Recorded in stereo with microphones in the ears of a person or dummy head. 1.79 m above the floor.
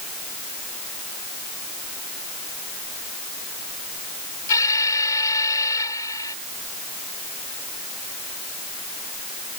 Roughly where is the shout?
No shout in this recording.